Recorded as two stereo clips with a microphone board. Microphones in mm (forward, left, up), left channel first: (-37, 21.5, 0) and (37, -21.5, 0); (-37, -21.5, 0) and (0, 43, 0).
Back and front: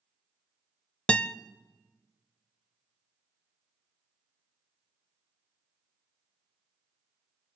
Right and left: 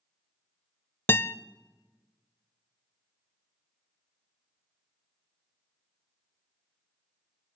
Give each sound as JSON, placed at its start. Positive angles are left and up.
{"t": 1.1, "sound": "a guitar", "azimuth_deg": -145, "distance_m": 0.5}